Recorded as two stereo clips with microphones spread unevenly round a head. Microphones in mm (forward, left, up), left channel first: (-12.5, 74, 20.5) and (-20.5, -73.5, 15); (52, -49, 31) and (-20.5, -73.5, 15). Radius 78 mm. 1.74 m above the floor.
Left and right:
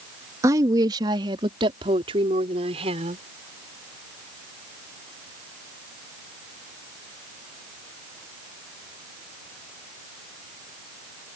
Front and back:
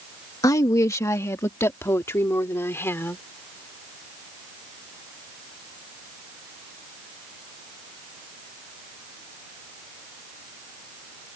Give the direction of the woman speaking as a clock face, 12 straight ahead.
1 o'clock.